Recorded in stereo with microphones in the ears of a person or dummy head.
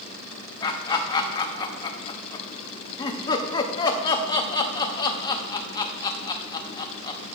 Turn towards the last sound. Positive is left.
turn(degrees=30)  # may be behind; listen again after turning